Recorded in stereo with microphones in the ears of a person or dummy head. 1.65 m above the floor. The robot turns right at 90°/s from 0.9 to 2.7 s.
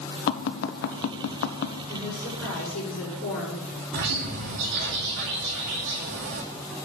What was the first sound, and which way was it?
Tapping, 60° left (ahead or behind).